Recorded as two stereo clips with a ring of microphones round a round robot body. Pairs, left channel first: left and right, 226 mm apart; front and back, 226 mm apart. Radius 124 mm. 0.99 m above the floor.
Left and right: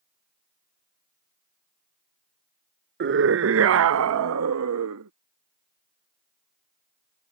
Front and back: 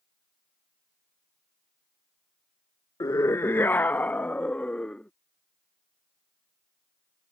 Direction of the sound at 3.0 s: 75° right.